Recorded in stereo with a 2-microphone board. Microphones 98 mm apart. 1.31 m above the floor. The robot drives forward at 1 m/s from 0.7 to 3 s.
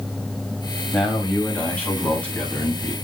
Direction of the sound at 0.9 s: 15° left (ahead or behind).